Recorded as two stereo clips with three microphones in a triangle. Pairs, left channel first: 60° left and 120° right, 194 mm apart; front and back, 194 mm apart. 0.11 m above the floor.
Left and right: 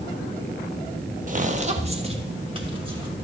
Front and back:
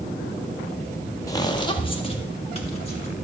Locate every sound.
1.3 s footsteps: 70° right, 1.5 m; by 3.1 s 55° right, 4 m